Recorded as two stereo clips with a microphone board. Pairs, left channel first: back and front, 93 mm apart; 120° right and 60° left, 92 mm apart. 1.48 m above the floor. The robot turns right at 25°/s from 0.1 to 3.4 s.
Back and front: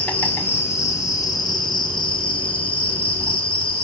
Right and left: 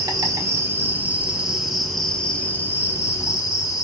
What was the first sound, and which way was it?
An insect, 105° left.